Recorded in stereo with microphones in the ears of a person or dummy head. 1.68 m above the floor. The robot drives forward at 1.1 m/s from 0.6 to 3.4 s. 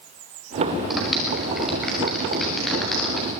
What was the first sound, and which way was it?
A clap, centre (ahead or behind).